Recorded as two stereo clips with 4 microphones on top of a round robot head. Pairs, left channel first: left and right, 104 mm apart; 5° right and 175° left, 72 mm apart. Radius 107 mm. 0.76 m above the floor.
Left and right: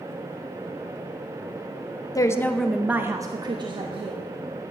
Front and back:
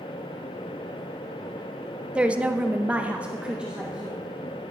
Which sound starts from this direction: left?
A woman speaking, at 2.1 s.